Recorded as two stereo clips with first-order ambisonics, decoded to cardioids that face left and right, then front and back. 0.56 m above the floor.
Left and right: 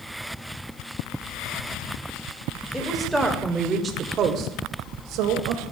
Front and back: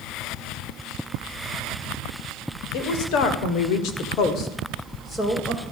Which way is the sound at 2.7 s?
5° left.